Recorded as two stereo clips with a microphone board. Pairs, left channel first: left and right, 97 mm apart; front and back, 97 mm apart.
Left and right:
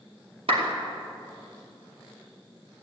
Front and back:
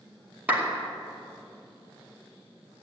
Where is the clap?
110° right, 2.5 m.